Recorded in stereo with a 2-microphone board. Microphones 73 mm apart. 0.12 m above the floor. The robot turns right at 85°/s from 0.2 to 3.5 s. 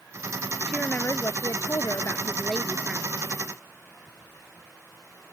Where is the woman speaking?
10° left; by 3.1 s 145° right.